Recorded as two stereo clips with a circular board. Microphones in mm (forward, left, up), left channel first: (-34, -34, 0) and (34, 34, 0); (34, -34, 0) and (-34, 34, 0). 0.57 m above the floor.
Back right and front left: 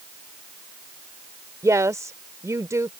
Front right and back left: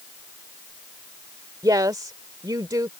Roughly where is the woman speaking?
Left.